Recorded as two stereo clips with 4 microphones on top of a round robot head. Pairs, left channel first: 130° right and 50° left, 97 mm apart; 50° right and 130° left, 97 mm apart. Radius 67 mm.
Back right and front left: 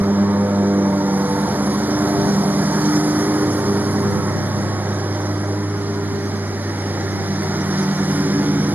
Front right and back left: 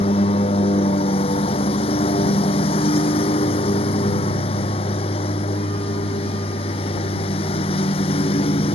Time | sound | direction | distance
0.0 | a lawn mower | 20° right | ?